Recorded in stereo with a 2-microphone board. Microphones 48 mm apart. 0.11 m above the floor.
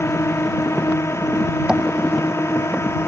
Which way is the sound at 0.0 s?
75° left (ahead or behind).